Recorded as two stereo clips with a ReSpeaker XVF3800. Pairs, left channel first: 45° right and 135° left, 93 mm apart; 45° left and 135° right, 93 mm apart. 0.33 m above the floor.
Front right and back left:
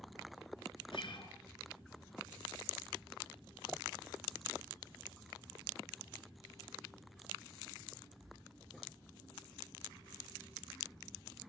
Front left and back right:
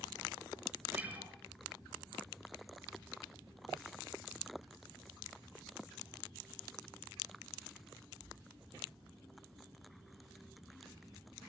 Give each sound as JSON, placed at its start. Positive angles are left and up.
{"t": 0.9, "sound": "a guitar", "azimuth_deg": -65, "distance_m": 4.0}